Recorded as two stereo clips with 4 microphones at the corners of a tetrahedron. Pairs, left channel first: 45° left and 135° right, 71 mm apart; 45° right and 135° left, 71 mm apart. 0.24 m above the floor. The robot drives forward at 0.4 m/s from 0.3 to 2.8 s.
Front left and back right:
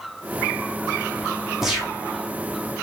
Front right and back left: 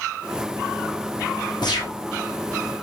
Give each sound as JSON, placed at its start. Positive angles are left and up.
{"t": 1.6, "sound": "a gunshot", "azimuth_deg": -50, "distance_m": 4.5}